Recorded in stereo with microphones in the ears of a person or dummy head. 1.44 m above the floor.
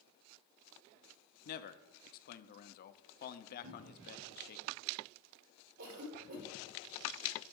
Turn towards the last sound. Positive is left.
turn(degrees=-85)